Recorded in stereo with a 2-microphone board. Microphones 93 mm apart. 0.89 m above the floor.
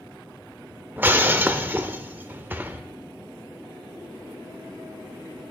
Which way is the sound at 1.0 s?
20° right (ahead or behind).